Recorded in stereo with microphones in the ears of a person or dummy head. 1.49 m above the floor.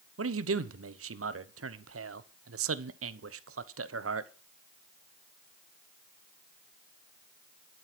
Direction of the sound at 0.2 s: 70° right (ahead or behind).